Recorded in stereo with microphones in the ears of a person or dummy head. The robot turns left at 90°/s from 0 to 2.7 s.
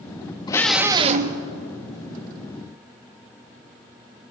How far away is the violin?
No violin in this recording.